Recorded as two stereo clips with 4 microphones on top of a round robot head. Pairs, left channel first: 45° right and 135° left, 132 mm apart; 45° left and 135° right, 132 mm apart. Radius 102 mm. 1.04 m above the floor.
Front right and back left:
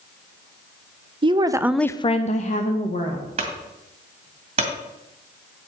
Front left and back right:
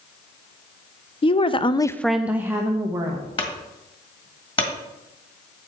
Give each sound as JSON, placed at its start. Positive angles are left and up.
{"t": 1.2, "sound": "a woman speaking", "azimuth_deg": 90, "distance_m": 0.9}
{"t": 3.4, "sound": "a clunk", "azimuth_deg": 95, "distance_m": 2.0}